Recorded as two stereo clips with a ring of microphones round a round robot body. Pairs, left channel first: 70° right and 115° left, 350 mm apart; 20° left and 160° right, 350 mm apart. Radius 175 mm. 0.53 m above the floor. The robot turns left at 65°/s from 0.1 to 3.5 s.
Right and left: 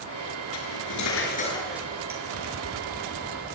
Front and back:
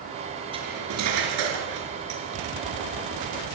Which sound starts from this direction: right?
Cutlery clinking, at 0.5 s.